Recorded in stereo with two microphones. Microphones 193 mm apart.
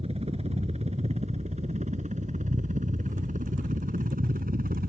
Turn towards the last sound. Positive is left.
turn(degrees=-50)  # may be behind; listen again after turning